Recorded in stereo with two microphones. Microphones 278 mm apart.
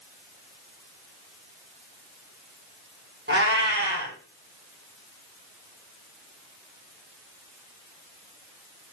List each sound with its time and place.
3.3 s a cat meowing: 40° right (ahead or behind), 1.4 m